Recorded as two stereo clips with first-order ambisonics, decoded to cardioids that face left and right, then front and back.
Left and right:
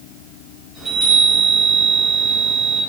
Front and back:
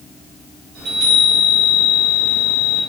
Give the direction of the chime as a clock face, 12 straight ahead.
6 o'clock.